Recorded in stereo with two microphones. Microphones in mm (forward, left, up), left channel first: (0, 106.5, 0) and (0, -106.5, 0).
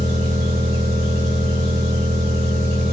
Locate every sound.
0.0 s an engine running: 50° right (ahead or behind), 4.5 m